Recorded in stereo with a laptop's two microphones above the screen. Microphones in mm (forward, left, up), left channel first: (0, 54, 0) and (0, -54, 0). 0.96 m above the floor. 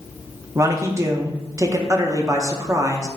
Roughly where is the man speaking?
Right.